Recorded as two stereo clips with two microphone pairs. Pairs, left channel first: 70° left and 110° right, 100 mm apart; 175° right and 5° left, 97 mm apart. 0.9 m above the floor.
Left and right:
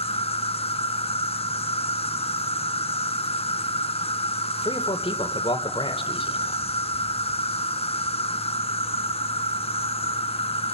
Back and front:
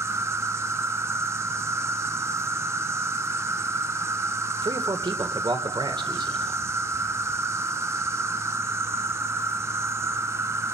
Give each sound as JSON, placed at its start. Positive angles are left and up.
{"t": 0.0, "sound": "an insect", "azimuth_deg": 65, "distance_m": 0.8}
{"t": 4.6, "sound": "a man speaking", "azimuth_deg": 45, "distance_m": 2.5}